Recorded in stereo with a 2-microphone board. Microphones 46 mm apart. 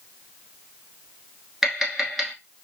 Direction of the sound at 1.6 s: 5° right (ahead or behind).